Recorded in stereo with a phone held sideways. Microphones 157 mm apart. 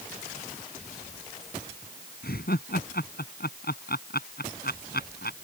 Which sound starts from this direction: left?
Laughter, at 2.2 s.